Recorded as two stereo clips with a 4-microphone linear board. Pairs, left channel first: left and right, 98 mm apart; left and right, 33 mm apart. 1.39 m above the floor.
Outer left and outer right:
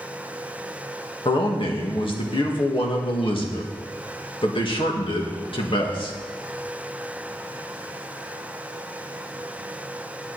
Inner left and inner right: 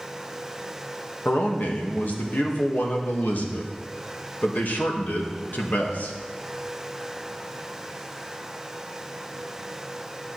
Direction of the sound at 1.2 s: 60° left (ahead or behind).